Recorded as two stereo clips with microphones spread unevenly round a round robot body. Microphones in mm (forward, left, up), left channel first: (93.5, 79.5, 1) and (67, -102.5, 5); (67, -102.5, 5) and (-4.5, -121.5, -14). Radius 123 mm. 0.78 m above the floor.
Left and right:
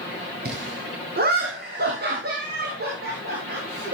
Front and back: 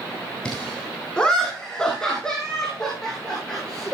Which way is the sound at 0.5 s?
65° right.